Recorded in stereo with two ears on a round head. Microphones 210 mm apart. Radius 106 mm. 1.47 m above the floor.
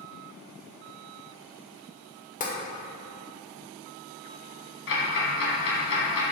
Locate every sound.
2.4 s tapping: 30° left (ahead or behind), 1.4 m
4.9 s ticking: 55° left (ahead or behind), 2.5 m